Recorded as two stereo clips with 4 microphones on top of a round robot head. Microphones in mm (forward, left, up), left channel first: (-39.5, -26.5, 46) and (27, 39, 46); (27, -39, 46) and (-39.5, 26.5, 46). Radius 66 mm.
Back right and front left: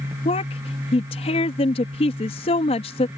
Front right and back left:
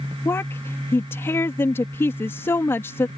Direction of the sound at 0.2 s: 110° right.